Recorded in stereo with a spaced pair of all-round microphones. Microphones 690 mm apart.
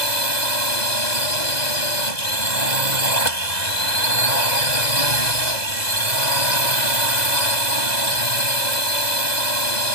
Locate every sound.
0.0 s a drone: 70° left (ahead or behind)